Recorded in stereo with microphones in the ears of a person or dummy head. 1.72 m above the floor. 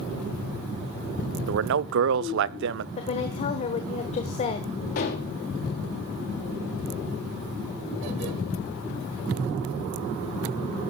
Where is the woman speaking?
30° left (ahead or behind), 1.3 m.